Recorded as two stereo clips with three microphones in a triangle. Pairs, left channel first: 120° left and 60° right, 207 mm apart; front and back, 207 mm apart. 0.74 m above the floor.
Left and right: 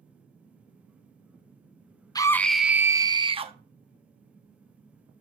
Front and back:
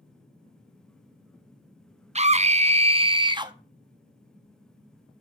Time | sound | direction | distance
2.1 | a scream | 170° left | 0.6 m